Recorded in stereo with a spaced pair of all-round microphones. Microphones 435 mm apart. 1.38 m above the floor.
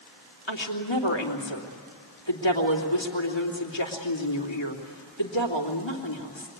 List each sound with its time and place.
0.5 s a woman speaking: 90° left, 3 m